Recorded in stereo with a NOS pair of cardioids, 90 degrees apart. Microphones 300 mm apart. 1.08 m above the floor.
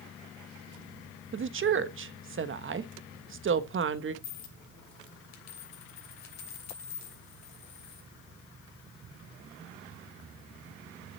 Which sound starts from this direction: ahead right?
A woman speaking, at 1.3 s.